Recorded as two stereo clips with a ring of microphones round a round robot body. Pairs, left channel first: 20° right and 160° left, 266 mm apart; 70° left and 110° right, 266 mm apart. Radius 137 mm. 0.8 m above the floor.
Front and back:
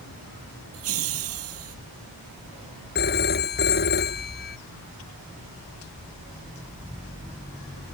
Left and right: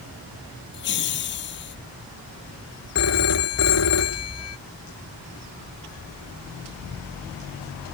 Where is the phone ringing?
35° left.